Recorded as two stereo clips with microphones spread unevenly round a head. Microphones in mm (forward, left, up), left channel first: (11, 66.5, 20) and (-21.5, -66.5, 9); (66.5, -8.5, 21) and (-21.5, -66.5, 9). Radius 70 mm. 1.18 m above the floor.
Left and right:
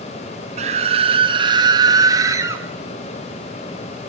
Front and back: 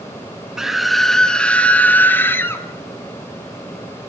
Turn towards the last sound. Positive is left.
turn(degrees=-35)